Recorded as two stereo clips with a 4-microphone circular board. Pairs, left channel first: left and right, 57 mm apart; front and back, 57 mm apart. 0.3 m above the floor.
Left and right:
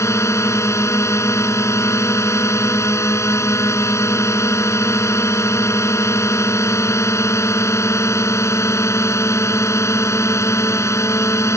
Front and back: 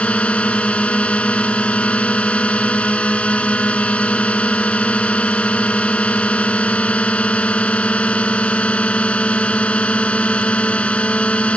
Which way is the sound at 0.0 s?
65° left.